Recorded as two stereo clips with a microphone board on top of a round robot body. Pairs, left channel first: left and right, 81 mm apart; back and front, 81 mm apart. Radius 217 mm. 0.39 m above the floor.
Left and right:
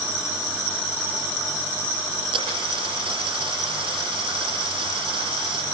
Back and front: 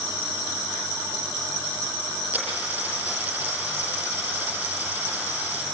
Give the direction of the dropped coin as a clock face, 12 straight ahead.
2 o'clock.